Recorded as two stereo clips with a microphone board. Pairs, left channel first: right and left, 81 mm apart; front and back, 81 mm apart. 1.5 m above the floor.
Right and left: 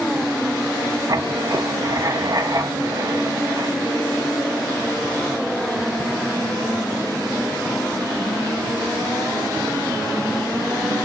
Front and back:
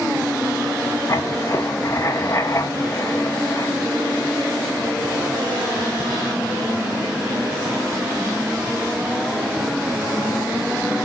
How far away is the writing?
About 1.1 m.